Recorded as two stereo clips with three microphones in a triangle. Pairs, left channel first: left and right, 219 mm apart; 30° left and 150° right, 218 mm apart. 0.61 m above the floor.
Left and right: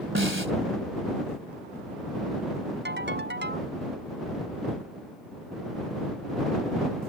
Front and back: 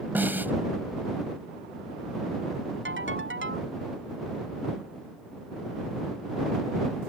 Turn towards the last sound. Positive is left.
turn(degrees=-125)